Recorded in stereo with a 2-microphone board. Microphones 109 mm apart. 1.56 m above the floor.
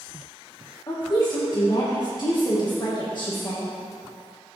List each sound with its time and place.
0.9 s a woman speaking: 40° left (ahead or behind), 1.6 m